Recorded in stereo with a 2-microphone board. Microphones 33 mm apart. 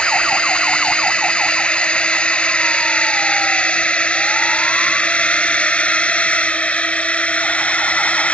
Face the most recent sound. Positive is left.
turn(degrees=45)  # may be behind; listen again after turning